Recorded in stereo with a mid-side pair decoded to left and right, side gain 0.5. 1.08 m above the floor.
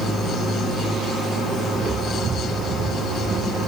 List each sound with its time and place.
1.8 s footsteps: 50° right, 6 m; by 3.6 s 60° right, 7 m